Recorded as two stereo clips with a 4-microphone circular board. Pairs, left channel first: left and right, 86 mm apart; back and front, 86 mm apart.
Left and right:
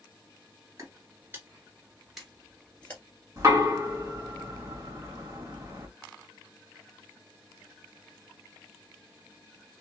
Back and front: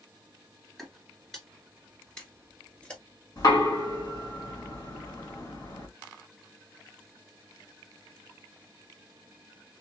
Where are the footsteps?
95° right, 1.9 m; by 3.0 s 125° left, 1.7 m.